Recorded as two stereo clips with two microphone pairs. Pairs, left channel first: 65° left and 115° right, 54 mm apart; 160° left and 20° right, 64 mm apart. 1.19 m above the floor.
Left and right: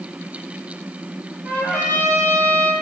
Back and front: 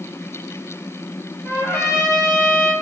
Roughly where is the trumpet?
Behind left.